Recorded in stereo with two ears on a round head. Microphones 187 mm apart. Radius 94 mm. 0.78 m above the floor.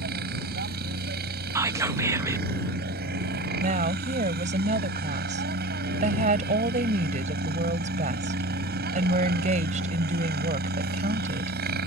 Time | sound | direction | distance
0.0 | a helicopter | 50° right (ahead or behind) | ?
1.6 | whispering | 15° right (ahead or behind) | ?
3.6 | a woman speaking | 35° right (ahead or behind) | ?